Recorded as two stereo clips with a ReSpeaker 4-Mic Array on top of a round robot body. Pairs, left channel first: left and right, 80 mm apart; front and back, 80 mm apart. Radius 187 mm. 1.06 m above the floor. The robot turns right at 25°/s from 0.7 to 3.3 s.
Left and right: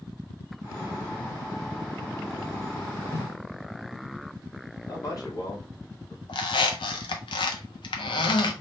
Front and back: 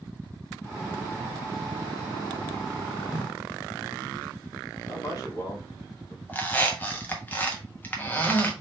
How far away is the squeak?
About 0.6 m.